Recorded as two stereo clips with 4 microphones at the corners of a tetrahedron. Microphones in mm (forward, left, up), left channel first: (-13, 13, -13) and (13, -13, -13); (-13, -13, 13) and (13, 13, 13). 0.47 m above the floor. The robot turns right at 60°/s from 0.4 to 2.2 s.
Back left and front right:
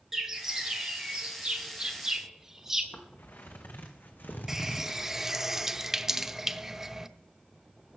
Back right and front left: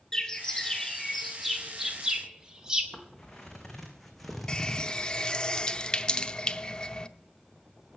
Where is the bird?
100° right, 1.4 m; by 2.8 s 10° left, 1.4 m.